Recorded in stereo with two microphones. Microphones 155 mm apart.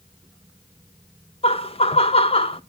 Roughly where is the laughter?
Left.